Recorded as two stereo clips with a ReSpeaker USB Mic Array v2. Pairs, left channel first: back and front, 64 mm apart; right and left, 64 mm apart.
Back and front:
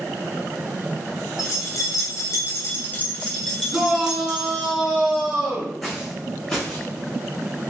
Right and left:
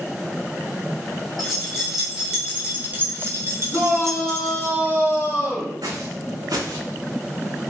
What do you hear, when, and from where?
1.4 s keys jangling: straight behind, 1.4 m; by 4.7 s 65° left, 1.4 m
3.7 s a shout: 80° right, 1.9 m
5.8 s footsteps: 90° left, 0.6 m; by 6.9 s 100° left, 1.4 m